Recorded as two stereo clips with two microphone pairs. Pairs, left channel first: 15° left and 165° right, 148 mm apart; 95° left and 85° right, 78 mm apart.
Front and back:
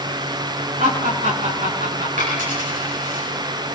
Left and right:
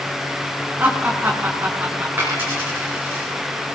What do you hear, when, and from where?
0.8 s laughter: 150° right, 5 m
2.2 s a dropped coin: 150° right, 9.5 m